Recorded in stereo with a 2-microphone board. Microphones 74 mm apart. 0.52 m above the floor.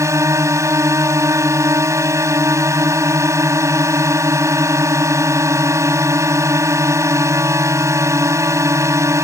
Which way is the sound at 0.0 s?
40° right (ahead or behind).